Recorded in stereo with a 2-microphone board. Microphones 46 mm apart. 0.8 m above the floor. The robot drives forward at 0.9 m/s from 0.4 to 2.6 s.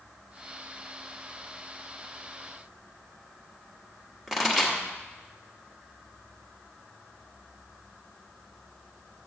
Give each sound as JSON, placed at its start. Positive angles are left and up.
{"t": 4.3, "sound": "a pop", "side_deg": -5, "distance_m": 1.3}